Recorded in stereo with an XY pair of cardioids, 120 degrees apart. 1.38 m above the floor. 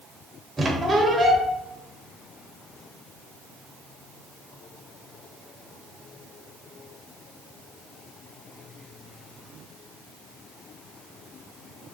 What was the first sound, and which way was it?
A squeak, 20° right.